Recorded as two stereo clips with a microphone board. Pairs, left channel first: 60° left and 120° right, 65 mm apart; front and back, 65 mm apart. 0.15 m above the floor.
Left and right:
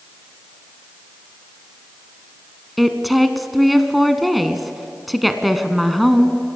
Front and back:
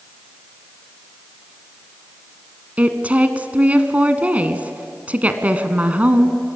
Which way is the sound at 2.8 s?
150° left.